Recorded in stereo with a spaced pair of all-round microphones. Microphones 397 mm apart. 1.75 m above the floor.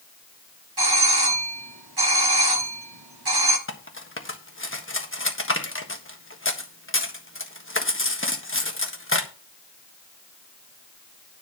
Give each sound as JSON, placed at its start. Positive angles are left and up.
{"t": 0.8, "sound": "a doorbell", "side_deg": -70, "distance_m": 1.4}
{"t": 3.7, "sound": "cutlery clinking", "side_deg": 30, "distance_m": 1.4}